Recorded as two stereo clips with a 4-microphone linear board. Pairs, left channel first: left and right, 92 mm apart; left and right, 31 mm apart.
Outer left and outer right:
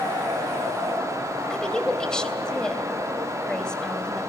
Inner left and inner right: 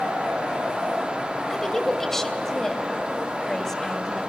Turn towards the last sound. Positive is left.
turn(degrees=10)  # may be behind; listen again after turning